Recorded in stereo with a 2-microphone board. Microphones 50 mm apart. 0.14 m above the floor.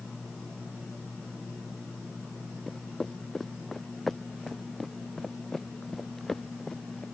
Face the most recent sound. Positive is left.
turn(degrees=10)  # may be behind; listen again after turning